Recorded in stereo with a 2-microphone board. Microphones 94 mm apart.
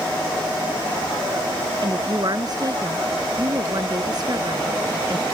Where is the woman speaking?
45° right (ahead or behind).